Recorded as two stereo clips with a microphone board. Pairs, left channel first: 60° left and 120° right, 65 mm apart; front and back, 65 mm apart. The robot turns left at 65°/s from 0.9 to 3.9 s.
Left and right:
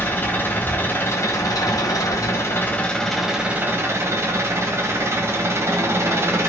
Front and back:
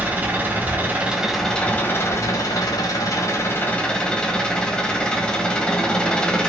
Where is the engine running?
120° left, 1.0 m; by 6.5 s 75° right, 1.0 m.